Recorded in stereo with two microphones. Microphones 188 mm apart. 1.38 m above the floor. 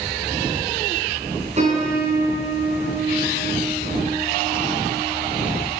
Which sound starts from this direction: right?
A piano, at 1.6 s.